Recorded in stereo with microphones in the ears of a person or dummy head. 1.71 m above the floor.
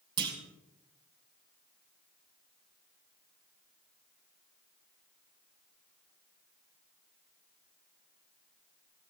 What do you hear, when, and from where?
0.2 s a clunk: 25° right (ahead or behind), 2 m